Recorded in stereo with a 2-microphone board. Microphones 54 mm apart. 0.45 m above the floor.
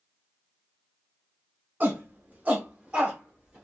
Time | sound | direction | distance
1.8 | a shout | 35° right (ahead or behind) | 1.2 m